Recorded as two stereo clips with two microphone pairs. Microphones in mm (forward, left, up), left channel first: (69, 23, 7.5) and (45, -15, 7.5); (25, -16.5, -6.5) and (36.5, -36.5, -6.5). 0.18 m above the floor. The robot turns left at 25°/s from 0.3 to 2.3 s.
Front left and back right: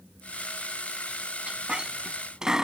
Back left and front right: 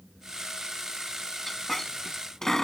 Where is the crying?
No crying in this recording.